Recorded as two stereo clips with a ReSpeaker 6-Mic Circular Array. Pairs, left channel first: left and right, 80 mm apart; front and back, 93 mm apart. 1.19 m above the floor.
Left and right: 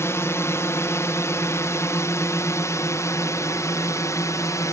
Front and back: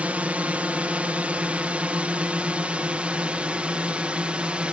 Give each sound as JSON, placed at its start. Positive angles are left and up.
{"t": 0.0, "sound": "a drone", "azimuth_deg": 115}